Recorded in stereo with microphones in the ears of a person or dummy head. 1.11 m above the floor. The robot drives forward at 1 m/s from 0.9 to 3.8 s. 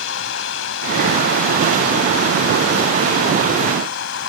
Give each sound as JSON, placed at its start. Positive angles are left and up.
{"t": 0.0, "sound": "running water", "side_deg": 75}